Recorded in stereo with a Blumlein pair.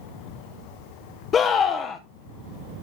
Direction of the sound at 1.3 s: 25° left.